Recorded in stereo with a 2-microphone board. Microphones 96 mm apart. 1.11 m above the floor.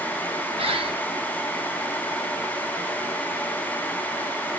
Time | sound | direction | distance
0.6 | a bird | 75° right (ahead or behind) | 1.8 m